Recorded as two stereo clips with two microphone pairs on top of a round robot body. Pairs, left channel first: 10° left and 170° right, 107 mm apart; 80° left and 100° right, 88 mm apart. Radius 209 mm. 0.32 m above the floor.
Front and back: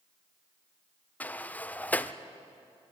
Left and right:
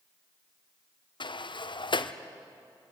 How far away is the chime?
I don't hear a chime.